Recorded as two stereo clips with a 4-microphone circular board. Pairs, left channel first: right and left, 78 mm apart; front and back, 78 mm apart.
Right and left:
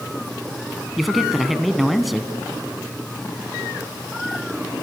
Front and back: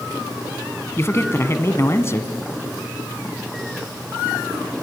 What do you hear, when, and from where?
1.0 s a man speaking: straight ahead, 1.2 m